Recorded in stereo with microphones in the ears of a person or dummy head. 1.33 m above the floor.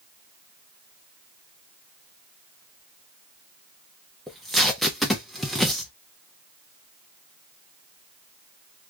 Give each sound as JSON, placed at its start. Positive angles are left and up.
{"t": 4.3, "sound": "tape being pulled", "side_deg": 0, "distance_m": 0.6}